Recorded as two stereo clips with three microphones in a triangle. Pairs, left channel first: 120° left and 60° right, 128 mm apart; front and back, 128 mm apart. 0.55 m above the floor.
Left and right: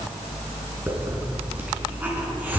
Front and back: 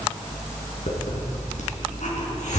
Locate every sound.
0.9 s a hiss: 15° left, 4 m